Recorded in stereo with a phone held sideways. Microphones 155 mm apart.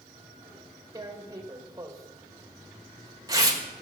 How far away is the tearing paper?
About 1.3 m.